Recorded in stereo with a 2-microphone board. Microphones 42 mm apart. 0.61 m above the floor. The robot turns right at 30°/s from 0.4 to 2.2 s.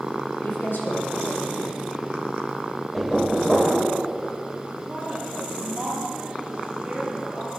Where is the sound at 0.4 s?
90° left, 3 m; by 1.8 s 135° left, 3 m.